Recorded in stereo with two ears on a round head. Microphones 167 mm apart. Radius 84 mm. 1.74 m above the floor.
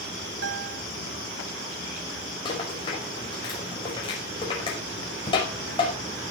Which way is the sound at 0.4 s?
70° right (ahead or behind).